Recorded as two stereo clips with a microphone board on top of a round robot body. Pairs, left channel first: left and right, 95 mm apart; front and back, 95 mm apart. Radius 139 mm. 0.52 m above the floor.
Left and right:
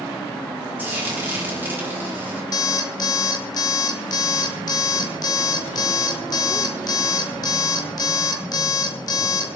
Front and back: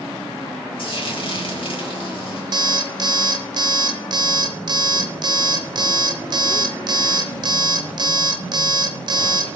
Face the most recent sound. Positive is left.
turn(degrees=140)